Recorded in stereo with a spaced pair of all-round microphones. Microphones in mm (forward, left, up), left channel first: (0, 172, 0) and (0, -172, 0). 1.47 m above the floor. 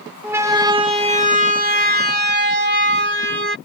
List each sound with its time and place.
0.2 s a siren: 5° right (ahead or behind); by 3.5 s 35° right (ahead or behind)